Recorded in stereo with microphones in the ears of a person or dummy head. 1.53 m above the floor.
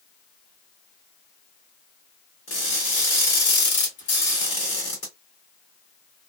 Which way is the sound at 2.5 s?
35° left (ahead or behind).